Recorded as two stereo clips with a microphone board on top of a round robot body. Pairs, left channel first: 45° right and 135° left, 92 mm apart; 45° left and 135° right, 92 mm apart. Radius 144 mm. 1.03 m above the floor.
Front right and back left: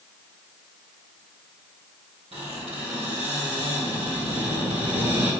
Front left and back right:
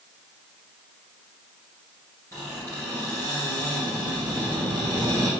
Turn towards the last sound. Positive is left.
turn(degrees=105)